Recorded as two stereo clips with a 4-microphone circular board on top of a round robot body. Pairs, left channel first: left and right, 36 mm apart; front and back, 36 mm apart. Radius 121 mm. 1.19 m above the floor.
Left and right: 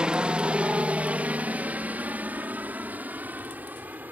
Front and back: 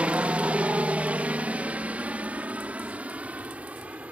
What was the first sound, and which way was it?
A helicopter, 140° right.